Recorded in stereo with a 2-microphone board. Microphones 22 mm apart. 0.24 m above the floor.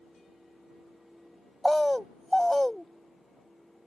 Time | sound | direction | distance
1.6 | a bird | 10° left (ahead or behind) | ?